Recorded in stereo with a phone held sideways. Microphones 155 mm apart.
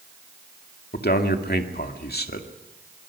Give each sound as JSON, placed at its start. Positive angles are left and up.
{"t": 0.9, "sound": "a man speaking", "side_deg": 80, "distance_m": 2.0}